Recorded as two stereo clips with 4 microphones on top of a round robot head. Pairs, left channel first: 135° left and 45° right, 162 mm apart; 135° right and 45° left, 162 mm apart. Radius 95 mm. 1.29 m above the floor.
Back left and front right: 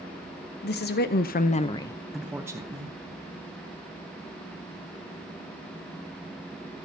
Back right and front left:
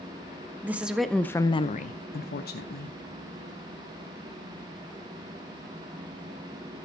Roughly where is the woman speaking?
Behind left.